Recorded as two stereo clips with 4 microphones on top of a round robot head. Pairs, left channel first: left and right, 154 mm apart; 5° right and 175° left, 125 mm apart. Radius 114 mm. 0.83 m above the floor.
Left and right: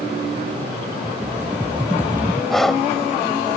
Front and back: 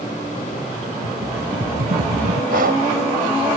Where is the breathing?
Straight behind.